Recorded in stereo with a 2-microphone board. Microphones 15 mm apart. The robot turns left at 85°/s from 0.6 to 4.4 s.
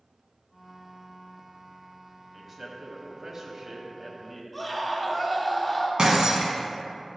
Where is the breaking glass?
65° right (ahead or behind), 1.6 m.